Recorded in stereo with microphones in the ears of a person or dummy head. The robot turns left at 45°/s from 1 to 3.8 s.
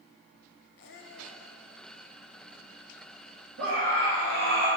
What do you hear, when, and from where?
0.8 s a squeak: 60° left (ahead or behind), 0.9 m; by 1.5 s 50° left (ahead or behind), 0.9 m
3.6 s a scream: 70° right (ahead or behind), 2.5 m; by 4.7 s 80° right, 2.5 m